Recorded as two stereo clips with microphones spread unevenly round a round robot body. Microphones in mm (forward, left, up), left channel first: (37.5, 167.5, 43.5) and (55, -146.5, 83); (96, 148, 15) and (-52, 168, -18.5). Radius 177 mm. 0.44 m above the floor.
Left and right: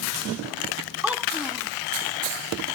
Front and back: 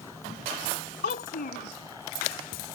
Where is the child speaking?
Straight ahead.